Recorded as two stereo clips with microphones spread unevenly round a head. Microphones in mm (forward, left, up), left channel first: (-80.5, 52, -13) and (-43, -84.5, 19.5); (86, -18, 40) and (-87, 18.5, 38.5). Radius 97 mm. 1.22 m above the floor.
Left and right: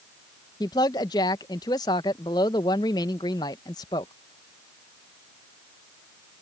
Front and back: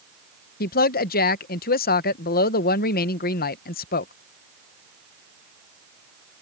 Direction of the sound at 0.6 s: 35° left.